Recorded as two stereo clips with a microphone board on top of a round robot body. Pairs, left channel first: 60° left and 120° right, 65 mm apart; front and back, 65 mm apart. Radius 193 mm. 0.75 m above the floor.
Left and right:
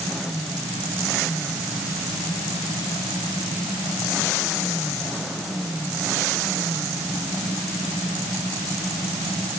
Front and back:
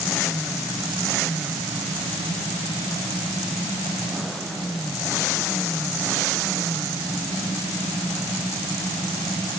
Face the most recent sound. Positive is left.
No sound to turn to.